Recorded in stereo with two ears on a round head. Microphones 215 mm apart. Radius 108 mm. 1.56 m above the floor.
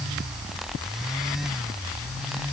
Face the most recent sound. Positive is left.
No sound to turn to.